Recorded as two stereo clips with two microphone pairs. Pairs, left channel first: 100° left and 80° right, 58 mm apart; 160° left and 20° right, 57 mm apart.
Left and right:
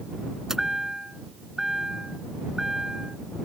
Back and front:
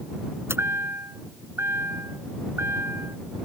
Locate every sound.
0.5 s a chime: straight ahead